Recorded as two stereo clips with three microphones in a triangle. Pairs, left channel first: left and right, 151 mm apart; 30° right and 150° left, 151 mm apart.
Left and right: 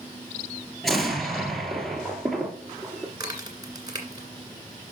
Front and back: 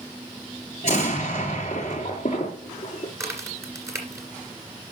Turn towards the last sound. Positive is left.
turn(degrees=-145)